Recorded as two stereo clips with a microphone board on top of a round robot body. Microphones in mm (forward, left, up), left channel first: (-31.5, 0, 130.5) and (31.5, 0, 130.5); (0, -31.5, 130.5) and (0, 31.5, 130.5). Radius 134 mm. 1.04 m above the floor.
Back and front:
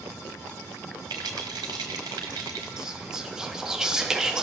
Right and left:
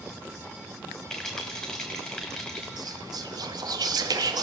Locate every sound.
1.1 s a rattle: 10° right, 1.1 m
2.8 s whispering: 80° left, 1.7 m